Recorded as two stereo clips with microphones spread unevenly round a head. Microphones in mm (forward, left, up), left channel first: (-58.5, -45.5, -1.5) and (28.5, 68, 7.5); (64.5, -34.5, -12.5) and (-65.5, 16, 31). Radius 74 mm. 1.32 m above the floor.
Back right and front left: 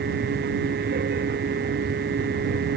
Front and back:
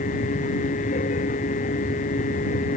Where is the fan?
20° left.